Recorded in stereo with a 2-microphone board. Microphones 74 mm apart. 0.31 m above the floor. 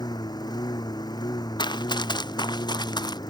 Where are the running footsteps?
85° left; by 3.2 s 75° left (ahead or behind).